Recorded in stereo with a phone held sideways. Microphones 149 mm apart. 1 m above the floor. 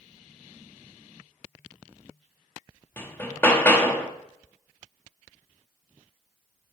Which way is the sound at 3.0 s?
15° left (ahead or behind).